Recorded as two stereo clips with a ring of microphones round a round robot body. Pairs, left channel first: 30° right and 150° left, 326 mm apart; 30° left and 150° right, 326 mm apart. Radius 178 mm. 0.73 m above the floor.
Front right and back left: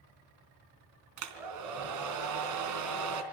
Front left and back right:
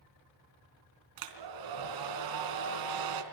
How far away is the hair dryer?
About 3.5 m.